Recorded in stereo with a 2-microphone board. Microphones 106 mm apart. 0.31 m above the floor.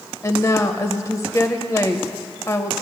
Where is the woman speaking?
30° left (ahead or behind), 0.9 m.